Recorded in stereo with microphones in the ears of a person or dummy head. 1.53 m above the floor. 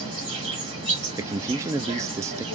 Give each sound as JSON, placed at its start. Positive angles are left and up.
{"t": 0.0, "sound": "an insect", "side_deg": -30, "distance_m": 2.0}
{"t": 1.2, "sound": "a man speaking", "side_deg": -15, "distance_m": 0.5}